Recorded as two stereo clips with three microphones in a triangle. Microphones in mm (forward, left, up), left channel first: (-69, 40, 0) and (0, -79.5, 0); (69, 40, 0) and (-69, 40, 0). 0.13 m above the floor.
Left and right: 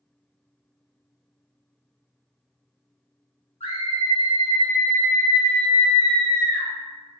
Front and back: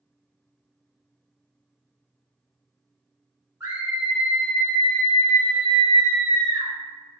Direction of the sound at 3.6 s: 115° left.